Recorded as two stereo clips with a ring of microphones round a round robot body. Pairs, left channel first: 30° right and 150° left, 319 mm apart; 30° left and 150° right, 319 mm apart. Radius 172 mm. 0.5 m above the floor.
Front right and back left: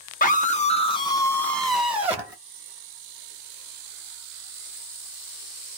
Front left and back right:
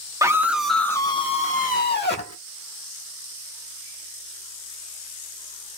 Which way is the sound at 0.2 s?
75° right.